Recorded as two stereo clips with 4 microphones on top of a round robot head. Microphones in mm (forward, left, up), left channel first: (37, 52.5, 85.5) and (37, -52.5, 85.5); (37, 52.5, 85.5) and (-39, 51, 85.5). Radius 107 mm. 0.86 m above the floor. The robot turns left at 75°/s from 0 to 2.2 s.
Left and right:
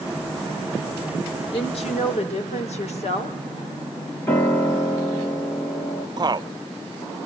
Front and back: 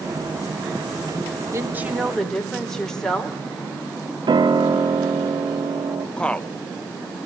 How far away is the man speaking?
About 0.9 m.